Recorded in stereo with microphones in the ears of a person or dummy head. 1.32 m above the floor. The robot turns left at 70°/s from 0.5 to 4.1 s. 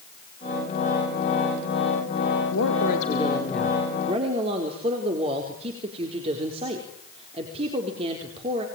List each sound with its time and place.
2.5 s a woman speaking: 80° left, 4 m; by 8.7 s 35° right, 4 m